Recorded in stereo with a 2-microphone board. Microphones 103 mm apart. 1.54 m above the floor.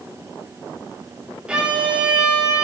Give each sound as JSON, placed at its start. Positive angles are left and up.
{"t": 1.5, "sound": "a violin", "side_deg": -10, "distance_m": 1.5}